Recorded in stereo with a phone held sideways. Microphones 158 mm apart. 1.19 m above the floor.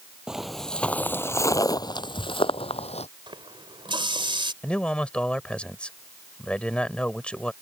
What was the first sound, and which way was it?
Footsteps, 5° right (ahead or behind).